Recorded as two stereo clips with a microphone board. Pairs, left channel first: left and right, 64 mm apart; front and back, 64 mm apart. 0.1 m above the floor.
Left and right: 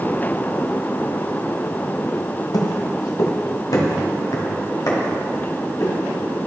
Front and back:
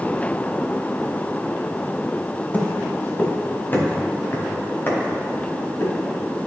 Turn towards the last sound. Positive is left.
turn(degrees=55)